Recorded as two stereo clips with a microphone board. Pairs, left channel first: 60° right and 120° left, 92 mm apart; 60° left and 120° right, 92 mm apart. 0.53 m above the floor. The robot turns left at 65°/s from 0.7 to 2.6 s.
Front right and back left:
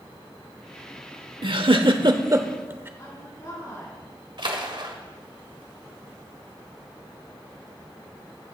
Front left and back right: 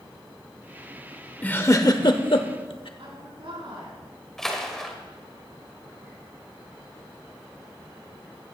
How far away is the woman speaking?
About 6 m.